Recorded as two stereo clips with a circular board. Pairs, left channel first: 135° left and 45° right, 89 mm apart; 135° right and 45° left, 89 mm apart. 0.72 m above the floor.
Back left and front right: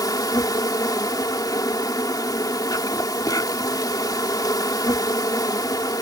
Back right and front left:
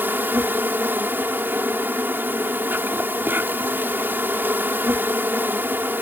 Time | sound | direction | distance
0.0 | an insect | 105° left | ?